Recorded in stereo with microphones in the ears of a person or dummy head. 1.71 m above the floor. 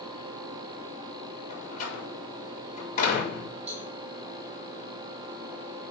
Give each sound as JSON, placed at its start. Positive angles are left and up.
{"t": 1.5, "sound": "a door slam", "side_deg": 45, "distance_m": 3.0}
{"t": 3.7, "sound": "a cowbell", "side_deg": -40, "distance_m": 1.5}